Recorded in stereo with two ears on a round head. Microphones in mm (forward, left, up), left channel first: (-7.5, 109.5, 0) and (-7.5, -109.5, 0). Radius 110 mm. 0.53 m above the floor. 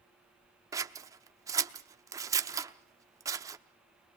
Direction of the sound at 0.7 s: 15° right (ahead or behind).